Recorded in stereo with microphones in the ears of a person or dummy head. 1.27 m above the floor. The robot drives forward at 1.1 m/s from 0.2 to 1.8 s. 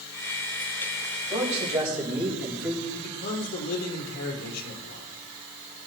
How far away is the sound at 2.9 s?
About 4 m.